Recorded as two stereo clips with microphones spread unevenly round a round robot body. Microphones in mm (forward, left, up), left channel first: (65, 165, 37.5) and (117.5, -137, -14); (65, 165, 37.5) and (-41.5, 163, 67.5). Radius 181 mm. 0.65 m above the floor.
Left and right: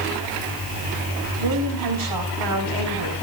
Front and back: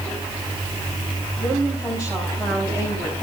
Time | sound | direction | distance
1.4 | a woman speaking | 90° right | 5 m